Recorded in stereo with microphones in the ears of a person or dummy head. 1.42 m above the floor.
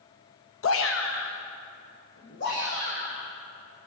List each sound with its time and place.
0.6 s a shout: 65° left (ahead or behind), 0.5 m; by 3.3 s 50° left (ahead or behind), 2.5 m